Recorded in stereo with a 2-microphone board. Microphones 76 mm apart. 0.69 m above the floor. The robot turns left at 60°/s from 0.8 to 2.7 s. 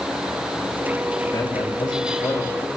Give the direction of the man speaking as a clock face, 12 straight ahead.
8 o'clock.